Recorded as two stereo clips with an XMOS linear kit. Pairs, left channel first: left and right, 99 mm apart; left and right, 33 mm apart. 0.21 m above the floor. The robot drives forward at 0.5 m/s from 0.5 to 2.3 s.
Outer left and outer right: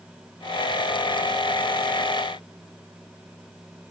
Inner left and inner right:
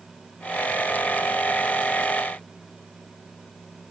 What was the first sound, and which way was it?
Only background noise.